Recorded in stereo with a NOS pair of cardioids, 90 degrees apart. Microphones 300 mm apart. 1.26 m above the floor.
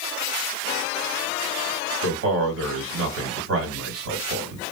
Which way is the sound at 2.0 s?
50° right.